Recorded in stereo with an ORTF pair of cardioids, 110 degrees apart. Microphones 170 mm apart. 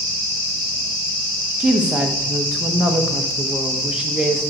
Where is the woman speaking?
5° right, 1.2 m.